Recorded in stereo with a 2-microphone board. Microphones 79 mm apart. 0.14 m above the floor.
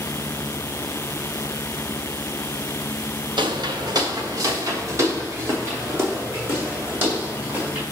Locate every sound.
3.4 s footsteps: 75° right (ahead or behind), 1.4 m; by 7.8 s 25° right (ahead or behind), 6 m